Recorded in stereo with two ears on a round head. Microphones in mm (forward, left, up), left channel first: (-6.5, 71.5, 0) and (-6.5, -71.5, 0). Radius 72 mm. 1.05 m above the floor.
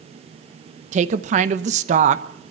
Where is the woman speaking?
45° right (ahead or behind), 1.0 m.